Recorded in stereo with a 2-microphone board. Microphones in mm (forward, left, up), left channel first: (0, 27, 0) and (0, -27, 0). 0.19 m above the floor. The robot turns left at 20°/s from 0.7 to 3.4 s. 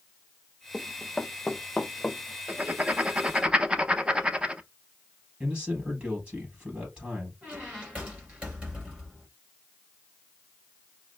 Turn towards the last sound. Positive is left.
turn(degrees=-25)  # may be behind; listen again after turning